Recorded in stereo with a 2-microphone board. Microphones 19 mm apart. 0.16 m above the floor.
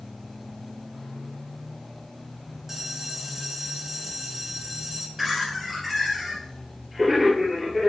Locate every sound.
2.7 s a bell: 15° right (ahead or behind), 1.6 m
5.2 s laughter: 10° right (ahead or behind), 3 m